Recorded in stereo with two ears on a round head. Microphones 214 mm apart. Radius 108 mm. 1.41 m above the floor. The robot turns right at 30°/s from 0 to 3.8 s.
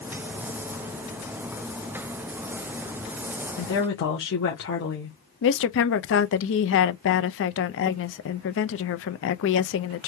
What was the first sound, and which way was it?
A woman speaking, 45° left (ahead or behind).